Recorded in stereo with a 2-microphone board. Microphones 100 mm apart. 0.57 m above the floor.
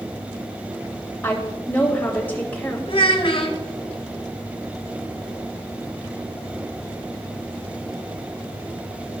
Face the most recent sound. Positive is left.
turn(degrees=60)  # may be behind; listen again after turning